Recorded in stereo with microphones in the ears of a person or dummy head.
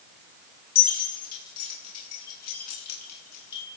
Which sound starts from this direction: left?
Keys jangling, at 0.8 s.